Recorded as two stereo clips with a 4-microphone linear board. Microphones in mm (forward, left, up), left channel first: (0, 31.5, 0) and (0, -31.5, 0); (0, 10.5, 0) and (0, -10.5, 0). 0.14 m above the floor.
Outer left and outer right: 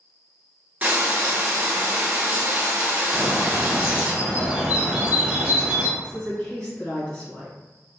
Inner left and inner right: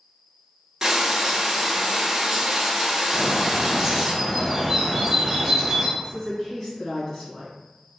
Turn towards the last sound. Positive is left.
turn(degrees=25)  # may be behind; listen again after turning